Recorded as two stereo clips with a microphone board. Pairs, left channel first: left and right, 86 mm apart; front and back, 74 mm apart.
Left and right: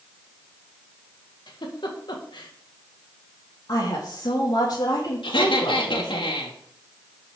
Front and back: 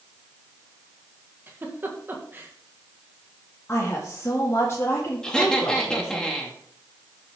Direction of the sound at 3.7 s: 55° left.